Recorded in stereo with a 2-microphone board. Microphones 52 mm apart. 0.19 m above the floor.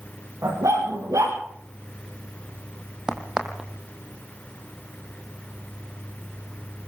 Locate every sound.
0.4 s a dog barking: 85° right, 9 m
3.1 s a crack: 15° right (ahead or behind), 2.5 m